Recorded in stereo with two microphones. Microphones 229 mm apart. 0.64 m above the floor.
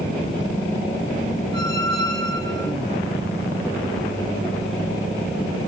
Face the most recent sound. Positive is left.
turn(degrees=-55)  # may be behind; listen again after turning